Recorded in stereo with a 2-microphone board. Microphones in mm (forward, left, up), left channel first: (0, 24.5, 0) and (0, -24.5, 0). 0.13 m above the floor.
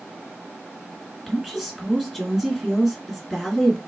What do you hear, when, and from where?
1.3 s a woman speaking: 5° right (ahead or behind), 1.7 m